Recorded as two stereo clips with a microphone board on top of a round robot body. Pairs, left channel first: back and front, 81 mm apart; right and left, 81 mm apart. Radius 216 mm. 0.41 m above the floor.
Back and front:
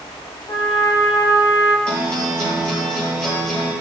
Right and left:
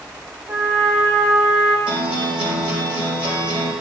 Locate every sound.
0.5 s a trumpet: 140° left, 1.1 m
1.9 s a guitar: 100° left, 4 m